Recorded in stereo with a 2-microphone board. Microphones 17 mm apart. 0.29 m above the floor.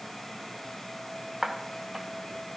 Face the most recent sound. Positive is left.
turn(degrees=-45)  # may be behind; listen again after turning